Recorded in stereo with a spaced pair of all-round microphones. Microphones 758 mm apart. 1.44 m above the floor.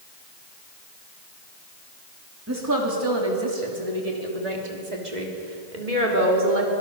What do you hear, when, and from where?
2.5 s a woman speaking: 20° right (ahead or behind), 2.5 m; by 6.7 s 85° right, 4 m